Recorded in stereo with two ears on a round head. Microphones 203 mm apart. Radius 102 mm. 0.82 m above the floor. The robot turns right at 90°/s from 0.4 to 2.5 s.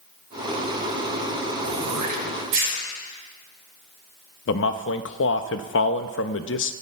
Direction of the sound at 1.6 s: 50° right (ahead or behind).